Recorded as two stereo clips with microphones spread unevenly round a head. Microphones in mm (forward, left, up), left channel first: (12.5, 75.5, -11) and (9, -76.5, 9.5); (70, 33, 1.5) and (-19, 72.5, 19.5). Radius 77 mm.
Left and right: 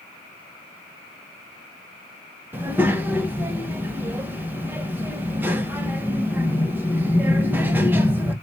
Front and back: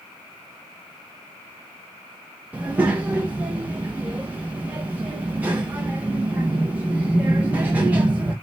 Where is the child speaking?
150° right, 0.7 m.